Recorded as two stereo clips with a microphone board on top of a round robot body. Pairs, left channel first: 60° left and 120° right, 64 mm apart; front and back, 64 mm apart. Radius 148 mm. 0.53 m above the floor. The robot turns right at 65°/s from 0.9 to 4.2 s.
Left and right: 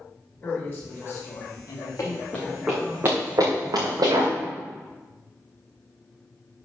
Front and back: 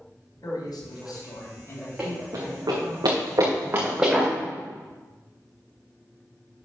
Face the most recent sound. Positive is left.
turn(degrees=-90)